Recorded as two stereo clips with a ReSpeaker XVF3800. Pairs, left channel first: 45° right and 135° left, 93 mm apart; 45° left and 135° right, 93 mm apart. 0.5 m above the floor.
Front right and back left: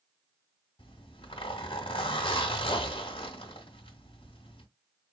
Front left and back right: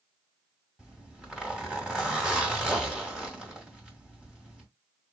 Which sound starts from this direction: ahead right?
A zipper, at 0.8 s.